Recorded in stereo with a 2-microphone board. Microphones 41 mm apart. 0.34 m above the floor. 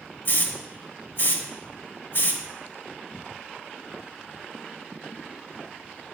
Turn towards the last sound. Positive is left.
turn(degrees=45)  # may be behind; listen again after turning